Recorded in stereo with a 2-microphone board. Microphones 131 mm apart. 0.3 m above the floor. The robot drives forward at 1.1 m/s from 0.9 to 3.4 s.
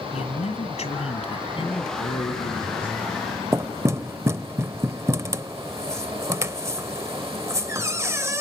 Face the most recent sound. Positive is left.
turn(degrees=-20)  # may be behind; listen again after turning